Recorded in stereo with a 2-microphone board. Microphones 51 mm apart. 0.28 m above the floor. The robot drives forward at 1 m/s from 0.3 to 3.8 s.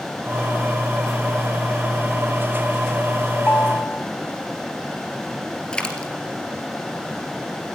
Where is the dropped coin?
20° left (ahead or behind), 2.5 m.